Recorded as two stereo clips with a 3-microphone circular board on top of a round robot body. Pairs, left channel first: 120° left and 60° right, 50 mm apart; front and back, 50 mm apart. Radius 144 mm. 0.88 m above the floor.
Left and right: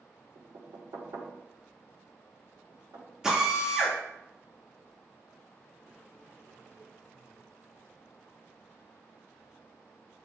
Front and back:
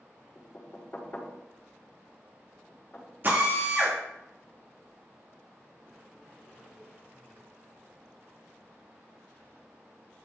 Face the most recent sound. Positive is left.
turn(degrees=-140)